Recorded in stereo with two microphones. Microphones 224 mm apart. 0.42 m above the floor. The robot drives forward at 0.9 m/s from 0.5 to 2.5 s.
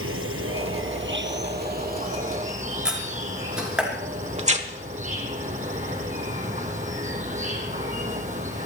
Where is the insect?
75° right (ahead or behind), 1.4 m; by 8.7 s 35° right (ahead or behind), 2.5 m.